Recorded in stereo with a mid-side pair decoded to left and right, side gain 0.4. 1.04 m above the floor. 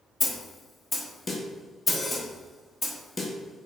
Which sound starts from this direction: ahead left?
A snare drum, at 0.2 s.